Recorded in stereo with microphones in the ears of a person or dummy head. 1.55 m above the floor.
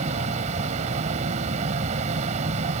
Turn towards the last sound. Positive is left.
turn(degrees=-40)  # may be behind; listen again after turning